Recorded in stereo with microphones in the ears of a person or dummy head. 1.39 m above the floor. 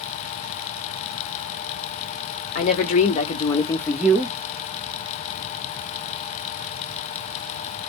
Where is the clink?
No clink in this recording.